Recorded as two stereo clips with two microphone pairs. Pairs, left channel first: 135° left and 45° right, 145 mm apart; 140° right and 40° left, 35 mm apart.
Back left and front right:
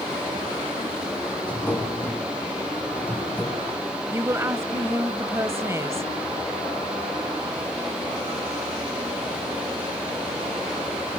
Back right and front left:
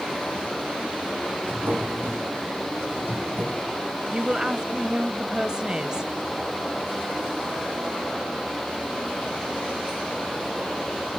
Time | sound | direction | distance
1.4 | a drawer | 55° left | 5.5 m
4.1 | a woman speaking | 5° left | 1.0 m